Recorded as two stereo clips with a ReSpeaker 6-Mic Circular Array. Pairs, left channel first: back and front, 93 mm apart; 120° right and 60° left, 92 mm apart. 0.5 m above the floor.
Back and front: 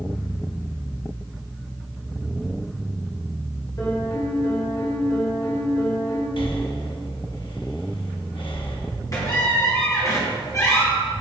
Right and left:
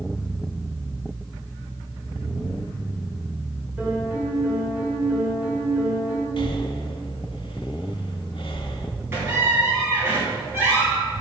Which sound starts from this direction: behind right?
Breathing, at 6.4 s.